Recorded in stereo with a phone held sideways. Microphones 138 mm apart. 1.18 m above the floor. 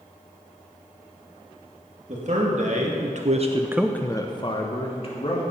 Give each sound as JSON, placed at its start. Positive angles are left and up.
{"t": 2.1, "sound": "a man speaking", "side_deg": -60, "distance_m": 2.5}